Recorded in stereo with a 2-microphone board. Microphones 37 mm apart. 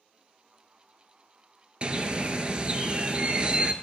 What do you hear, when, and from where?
1.8 s a bird: 30° right (ahead or behind), 0.6 m